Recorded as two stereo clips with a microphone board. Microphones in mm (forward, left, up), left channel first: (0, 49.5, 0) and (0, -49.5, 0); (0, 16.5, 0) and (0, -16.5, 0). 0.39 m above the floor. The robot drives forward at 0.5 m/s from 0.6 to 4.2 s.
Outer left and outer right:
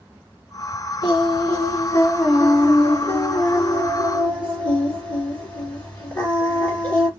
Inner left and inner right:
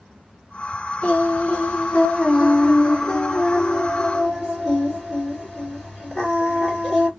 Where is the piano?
I don't hear a piano.